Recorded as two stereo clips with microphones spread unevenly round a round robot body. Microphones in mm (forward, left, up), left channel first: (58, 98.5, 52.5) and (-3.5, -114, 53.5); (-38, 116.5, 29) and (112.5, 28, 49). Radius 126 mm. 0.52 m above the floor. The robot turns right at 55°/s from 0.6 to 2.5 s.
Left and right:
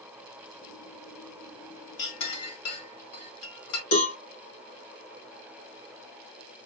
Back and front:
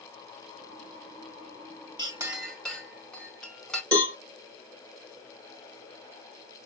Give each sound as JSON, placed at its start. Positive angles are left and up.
{"t": 2.0, "sound": "a clink", "azimuth_deg": 35, "distance_m": 1.7}
{"t": 3.9, "sound": "a cowbell", "azimuth_deg": 70, "distance_m": 1.9}